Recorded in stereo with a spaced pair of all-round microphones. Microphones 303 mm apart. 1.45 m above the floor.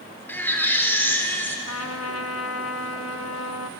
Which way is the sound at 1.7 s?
55° left (ahead or behind).